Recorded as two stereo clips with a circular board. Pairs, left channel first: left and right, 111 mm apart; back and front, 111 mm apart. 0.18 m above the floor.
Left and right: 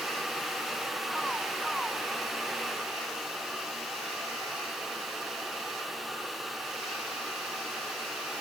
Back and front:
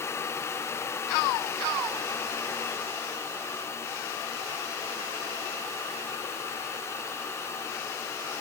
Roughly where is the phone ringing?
No phone ringing in this recording.